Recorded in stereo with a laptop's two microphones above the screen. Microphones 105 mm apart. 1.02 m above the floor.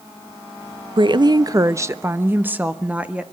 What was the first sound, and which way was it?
A woman speaking, 50° right (ahead or behind).